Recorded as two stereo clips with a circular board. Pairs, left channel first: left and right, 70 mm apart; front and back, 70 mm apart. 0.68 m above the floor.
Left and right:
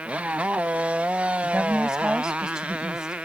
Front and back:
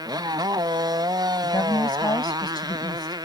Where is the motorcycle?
160° right; by 3.2 s 165° right.